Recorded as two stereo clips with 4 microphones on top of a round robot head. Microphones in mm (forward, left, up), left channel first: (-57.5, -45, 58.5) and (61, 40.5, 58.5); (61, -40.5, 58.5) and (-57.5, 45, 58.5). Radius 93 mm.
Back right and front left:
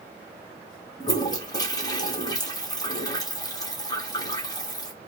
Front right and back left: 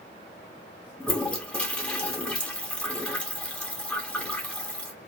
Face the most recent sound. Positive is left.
turn(degrees=-110)